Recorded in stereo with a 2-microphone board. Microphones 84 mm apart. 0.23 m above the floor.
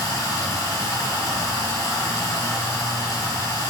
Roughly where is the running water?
Left.